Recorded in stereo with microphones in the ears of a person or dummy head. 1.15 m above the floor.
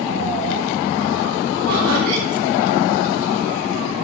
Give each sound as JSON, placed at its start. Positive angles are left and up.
{"t": 1.7, "sound": "laughter", "side_deg": -80, "distance_m": 7.0}